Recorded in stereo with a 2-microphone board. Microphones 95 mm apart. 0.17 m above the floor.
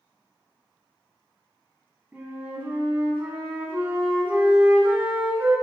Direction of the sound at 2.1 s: 20° right (ahead or behind).